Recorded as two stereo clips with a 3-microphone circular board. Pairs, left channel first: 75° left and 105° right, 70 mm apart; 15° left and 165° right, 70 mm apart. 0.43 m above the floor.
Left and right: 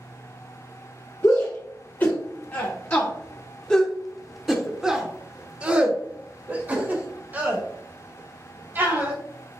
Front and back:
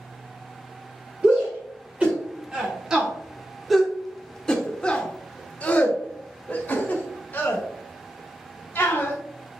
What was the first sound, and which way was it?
A shout, 130° left.